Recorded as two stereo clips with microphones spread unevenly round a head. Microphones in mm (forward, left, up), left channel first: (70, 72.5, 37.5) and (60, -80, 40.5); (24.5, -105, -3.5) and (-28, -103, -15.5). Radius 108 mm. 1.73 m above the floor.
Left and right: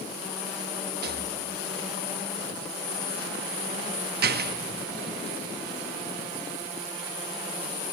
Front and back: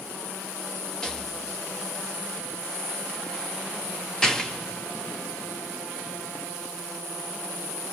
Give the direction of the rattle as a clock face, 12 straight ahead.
3 o'clock.